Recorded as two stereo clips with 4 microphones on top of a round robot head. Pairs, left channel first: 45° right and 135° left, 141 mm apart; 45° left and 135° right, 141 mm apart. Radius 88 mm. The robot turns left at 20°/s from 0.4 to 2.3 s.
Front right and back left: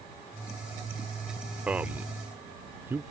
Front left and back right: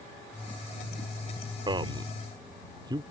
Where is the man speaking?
150° right; by 3.0 s 160° right.